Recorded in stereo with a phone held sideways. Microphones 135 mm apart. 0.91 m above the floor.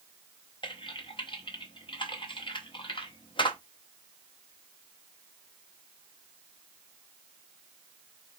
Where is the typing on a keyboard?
40° left (ahead or behind), 0.8 m.